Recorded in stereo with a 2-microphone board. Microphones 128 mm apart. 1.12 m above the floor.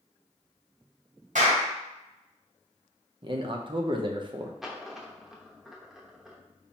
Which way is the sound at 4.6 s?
5° right (ahead or behind).